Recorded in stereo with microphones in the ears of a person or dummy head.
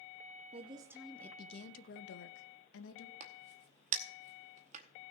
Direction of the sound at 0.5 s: 30° right (ahead or behind).